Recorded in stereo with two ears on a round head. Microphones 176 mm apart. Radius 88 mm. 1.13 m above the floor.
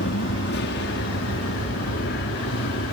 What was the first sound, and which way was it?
An aircraft, 60° left (ahead or behind).